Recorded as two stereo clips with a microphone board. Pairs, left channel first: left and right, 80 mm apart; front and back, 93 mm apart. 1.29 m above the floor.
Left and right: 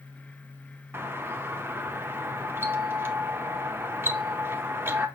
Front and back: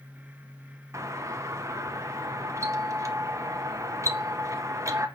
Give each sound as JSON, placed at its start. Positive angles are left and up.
{"t": 0.9, "sound": "a doorbell", "azimuth_deg": -140, "distance_m": 0.5}